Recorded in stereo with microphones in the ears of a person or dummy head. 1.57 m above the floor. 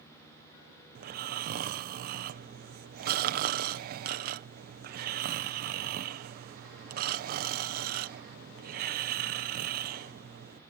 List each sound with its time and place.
0.9 s snoring: 55° right (ahead or behind)